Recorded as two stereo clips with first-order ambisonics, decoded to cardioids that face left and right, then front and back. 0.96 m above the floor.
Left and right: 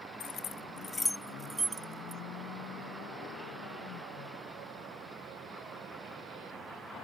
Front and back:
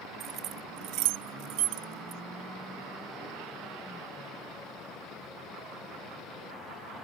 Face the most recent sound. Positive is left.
turn(degrees=-150)